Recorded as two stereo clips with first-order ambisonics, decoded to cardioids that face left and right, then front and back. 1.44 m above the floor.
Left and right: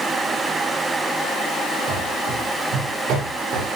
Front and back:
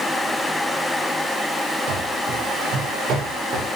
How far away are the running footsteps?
About 7 m.